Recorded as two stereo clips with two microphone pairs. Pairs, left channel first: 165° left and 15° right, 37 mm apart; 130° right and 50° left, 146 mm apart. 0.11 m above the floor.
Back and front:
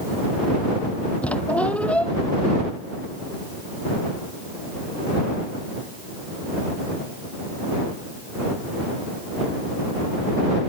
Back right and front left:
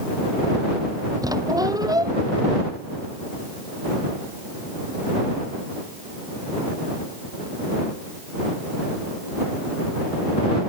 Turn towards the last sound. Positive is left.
turn(degrees=115)